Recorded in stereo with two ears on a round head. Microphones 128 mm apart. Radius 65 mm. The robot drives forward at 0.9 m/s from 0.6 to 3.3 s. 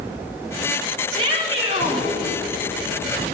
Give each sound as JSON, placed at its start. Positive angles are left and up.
{"t": 1.1, "sound": "a shout", "side_deg": -40, "distance_m": 6.0}